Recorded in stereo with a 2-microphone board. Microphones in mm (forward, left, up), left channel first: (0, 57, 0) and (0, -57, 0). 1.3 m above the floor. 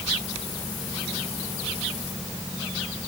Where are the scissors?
No scissors in this recording.